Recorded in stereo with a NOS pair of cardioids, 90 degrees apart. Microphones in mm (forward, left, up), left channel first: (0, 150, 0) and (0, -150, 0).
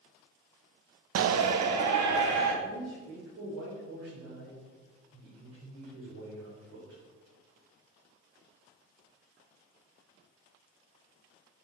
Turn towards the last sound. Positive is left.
turn(degrees=-70)